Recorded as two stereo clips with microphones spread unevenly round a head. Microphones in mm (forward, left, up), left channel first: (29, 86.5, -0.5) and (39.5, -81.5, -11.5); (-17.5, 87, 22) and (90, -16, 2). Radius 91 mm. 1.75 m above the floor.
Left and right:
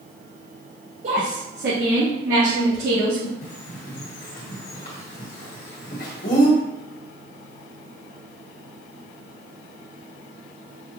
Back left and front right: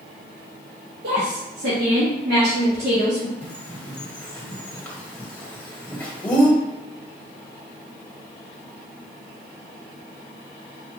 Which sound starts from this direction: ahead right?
A woman speaking, at 1.0 s.